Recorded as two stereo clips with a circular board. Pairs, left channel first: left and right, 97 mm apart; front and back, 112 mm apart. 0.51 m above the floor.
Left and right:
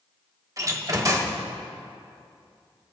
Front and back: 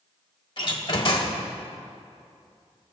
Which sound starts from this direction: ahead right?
A door slam, at 0.6 s.